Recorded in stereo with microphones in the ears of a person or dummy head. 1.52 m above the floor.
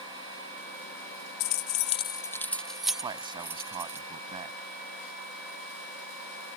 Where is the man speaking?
20° right (ahead or behind).